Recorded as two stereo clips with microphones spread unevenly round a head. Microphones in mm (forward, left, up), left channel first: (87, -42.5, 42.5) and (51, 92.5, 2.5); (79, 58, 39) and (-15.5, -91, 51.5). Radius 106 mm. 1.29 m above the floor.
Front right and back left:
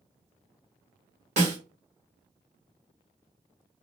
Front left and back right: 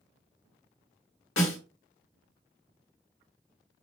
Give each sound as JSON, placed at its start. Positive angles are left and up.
{"t": 1.4, "sound": "a snare drum", "azimuth_deg": 65, "distance_m": 3.0}